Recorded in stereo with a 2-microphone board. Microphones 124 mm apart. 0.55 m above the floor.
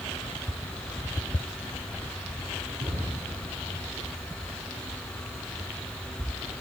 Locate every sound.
2.8 s a cupboard door: 60° right (ahead or behind), 5.5 m